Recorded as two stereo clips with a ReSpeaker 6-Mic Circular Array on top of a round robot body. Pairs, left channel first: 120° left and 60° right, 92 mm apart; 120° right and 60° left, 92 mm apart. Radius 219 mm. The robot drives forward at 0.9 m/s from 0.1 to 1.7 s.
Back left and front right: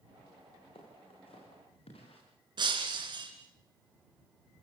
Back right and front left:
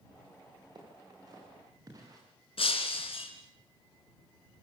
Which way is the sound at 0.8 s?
105° left.